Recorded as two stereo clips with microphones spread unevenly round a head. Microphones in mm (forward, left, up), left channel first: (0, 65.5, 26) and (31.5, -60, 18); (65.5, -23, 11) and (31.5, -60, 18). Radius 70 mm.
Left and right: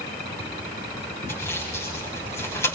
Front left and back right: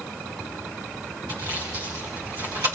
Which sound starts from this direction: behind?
Sawing, at 1.3 s.